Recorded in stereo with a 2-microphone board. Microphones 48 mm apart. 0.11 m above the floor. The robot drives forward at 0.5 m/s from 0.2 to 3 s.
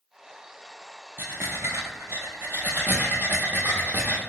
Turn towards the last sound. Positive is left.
turn(degrees=-35)  # may be behind; listen again after turning